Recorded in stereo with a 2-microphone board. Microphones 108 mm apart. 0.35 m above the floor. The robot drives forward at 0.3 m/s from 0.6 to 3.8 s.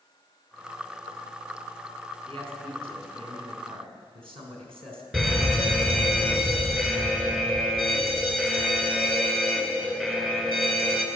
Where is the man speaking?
55° right (ahead or behind), 3.5 m; by 5.0 s 60° right (ahead or behind), 3.5 m.